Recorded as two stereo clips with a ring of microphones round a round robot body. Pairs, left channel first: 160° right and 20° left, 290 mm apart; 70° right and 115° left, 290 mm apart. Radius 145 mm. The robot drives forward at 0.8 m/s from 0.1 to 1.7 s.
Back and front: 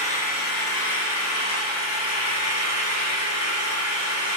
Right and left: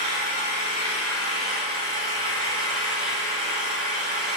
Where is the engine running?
90° right, 2.5 m; by 4.4 s 120° right, 2.5 m.